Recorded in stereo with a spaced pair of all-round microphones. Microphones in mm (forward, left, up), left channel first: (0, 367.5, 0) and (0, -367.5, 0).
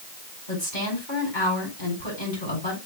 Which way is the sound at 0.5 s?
75° left (ahead or behind).